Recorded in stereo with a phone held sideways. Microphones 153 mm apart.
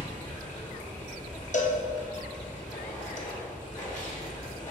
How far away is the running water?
About 1.5 m.